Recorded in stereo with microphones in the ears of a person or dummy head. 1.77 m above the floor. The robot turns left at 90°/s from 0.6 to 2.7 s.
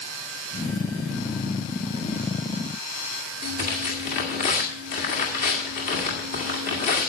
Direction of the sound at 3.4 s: 35° left (ahead or behind).